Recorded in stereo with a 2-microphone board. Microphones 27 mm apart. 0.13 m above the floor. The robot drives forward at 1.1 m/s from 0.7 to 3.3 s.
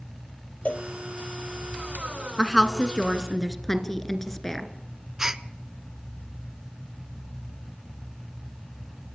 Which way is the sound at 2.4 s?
20° left (ahead or behind).